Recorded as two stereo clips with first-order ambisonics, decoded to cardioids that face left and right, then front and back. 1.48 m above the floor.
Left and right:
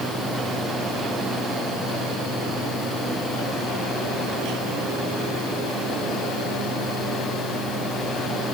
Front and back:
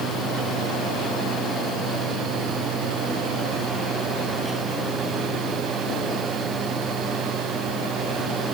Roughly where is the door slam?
I don't hear a door slam.